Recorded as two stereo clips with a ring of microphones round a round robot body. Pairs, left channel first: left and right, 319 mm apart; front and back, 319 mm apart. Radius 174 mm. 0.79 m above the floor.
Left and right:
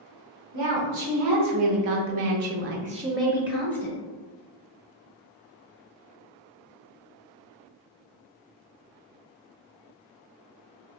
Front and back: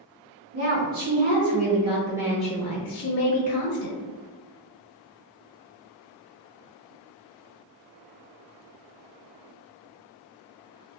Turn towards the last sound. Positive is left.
turn(degrees=30)